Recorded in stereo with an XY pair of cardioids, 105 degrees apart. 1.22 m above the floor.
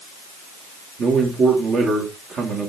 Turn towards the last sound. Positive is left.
turn(degrees=-55)